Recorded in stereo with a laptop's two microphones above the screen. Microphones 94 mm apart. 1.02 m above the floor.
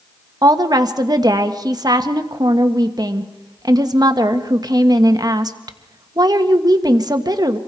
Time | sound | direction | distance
0.4 | a woman speaking | 45° right (ahead or behind) | 1.5 m